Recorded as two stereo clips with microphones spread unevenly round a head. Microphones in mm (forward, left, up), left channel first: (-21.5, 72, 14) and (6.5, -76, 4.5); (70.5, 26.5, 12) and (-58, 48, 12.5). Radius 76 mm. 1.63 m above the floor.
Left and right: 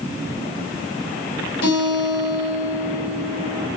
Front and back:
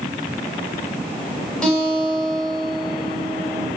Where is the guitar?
75° left, 6 m.